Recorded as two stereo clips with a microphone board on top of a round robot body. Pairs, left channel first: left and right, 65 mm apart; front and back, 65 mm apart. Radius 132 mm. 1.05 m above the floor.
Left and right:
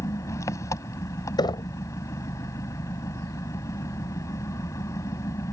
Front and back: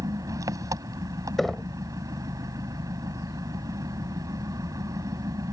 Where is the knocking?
85° left.